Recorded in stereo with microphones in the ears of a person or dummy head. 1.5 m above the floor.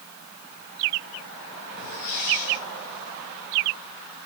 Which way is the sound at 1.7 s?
55° left (ahead or behind).